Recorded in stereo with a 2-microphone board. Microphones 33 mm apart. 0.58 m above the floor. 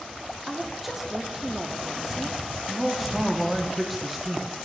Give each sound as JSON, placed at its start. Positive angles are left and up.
{"t": 0.5, "sound": "a woman speaking", "side_deg": -10, "distance_m": 0.7}
{"t": 2.7, "sound": "a man speaking", "side_deg": -10, "distance_m": 0.7}